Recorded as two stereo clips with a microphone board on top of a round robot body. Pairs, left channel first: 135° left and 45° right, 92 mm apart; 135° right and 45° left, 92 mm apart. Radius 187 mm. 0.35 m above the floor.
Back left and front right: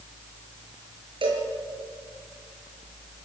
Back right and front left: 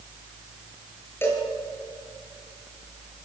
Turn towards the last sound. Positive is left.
turn(degrees=-70)